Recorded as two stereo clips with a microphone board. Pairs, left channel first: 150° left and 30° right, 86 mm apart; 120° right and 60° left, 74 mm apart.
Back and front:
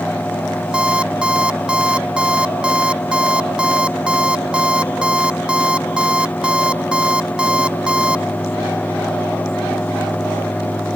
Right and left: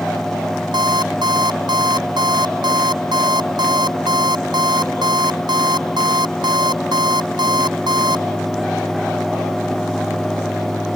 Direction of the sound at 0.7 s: 50° left.